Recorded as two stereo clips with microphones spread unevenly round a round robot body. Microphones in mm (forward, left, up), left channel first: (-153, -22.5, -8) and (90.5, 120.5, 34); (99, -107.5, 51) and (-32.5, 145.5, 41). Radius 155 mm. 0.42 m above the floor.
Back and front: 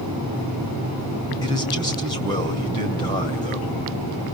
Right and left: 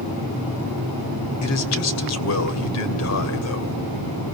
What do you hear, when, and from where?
1.4 s a man speaking: 80° right, 2.5 m